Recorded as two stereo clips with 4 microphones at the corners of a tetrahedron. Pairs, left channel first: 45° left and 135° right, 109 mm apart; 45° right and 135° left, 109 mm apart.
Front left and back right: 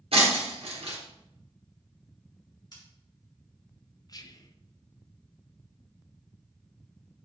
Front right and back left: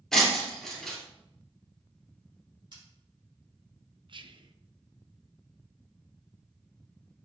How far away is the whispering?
About 0.7 m.